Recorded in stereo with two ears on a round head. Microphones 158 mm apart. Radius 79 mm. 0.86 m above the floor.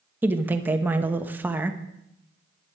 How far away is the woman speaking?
About 1.0 m.